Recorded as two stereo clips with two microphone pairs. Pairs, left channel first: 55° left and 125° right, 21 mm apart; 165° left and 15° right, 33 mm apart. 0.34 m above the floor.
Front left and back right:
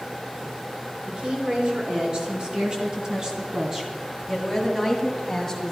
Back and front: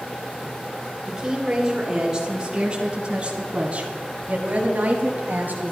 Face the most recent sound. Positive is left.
turn(degrees=-25)